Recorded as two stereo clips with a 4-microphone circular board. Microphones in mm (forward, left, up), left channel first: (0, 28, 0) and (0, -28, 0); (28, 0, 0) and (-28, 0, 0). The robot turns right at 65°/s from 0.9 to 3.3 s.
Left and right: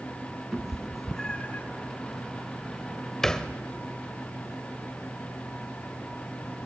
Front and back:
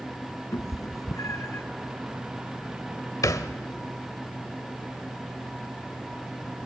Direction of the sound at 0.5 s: 5° right.